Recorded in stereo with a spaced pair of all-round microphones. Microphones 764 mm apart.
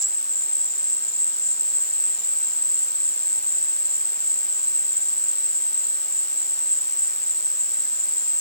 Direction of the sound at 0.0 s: 20° left (ahead or behind).